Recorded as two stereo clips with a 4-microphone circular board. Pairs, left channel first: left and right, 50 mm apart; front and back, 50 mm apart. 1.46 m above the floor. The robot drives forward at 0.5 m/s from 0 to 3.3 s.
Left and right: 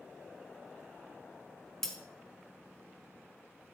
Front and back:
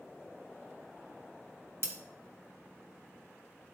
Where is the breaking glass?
170° left, 1.8 m.